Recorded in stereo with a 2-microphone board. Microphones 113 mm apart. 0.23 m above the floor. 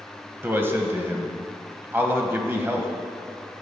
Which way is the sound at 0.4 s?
20° right (ahead or behind).